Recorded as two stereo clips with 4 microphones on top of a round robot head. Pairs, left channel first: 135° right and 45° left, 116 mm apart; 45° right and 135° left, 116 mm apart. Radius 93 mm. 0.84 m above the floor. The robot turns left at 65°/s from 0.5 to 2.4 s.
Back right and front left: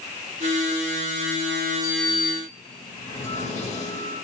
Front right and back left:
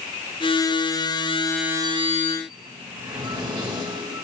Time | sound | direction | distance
1.8 | a sliding door | 130° right | 2.5 m